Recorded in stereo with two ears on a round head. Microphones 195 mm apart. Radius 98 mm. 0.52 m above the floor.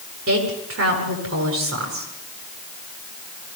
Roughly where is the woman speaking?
Right.